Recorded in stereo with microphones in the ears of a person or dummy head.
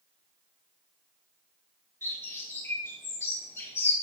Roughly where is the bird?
Centre.